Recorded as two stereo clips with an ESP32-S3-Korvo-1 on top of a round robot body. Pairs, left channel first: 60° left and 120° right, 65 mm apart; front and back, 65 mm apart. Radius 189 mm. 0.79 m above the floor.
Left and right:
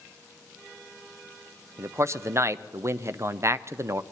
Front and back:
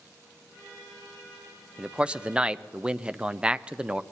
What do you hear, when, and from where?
1.8 s a man speaking: 110° right, 0.7 m